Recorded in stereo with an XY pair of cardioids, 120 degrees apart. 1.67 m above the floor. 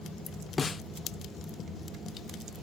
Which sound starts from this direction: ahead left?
A snare drum, at 0.6 s.